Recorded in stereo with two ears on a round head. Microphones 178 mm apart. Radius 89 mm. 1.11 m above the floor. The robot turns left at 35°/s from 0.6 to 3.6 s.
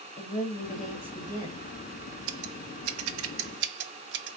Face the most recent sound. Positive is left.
turn(degrees=-60)  # may be behind; listen again after turning